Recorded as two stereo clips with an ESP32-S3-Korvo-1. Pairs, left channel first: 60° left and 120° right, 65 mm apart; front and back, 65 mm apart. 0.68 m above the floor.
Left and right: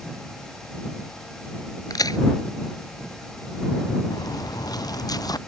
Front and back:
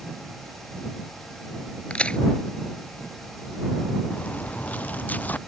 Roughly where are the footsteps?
Ahead left.